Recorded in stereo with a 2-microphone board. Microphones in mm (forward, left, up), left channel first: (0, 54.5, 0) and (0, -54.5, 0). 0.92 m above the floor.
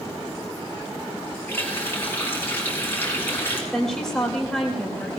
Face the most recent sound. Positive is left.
turn(degrees=5)  # may be behind; listen again after turning